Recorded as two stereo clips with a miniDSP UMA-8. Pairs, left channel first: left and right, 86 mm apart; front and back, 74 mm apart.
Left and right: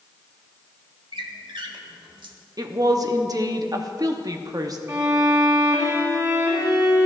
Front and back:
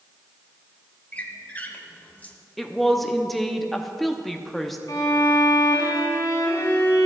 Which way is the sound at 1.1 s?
70° right.